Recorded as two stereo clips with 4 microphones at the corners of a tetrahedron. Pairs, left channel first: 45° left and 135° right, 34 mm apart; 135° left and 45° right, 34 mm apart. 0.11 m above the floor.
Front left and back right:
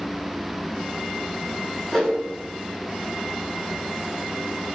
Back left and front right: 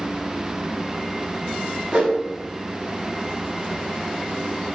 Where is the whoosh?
15° right, 1.1 m.